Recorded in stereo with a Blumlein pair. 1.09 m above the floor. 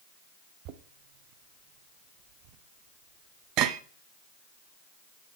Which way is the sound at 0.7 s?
40° right.